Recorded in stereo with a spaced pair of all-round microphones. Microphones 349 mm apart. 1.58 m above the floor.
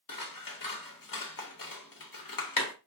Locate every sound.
0.1 s scissors: 70° left (ahead or behind), 0.7 m